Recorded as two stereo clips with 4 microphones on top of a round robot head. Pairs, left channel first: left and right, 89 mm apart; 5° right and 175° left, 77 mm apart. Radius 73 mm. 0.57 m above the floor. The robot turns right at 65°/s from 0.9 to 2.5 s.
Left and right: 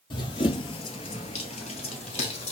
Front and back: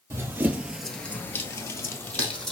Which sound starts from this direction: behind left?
Running footsteps, at 0.1 s.